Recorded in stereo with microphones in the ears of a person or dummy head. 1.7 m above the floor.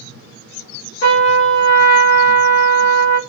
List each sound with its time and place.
1.0 s a trumpet: 60° left (ahead or behind), 1.0 m